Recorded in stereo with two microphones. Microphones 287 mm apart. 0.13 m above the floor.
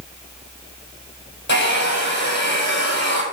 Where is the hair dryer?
40° left (ahead or behind), 3 m.